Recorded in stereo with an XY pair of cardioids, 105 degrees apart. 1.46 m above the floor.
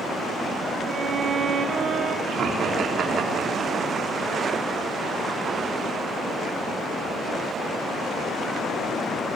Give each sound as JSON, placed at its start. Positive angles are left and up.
{"t": 0.8, "sound": "a violin", "azimuth_deg": -45, "distance_m": 4.0}
{"t": 2.3, "sound": "laughter", "azimuth_deg": -60, "distance_m": 4.0}